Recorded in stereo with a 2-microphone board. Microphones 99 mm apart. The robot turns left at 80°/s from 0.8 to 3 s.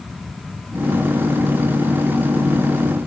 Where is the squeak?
No squeak in this recording.